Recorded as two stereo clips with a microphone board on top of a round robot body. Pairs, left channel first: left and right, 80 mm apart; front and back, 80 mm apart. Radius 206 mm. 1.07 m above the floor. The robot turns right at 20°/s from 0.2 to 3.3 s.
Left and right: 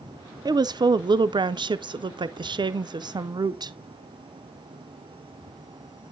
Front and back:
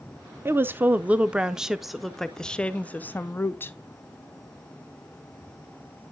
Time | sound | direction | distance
0.5 | a woman speaking | 120° right | 0.6 m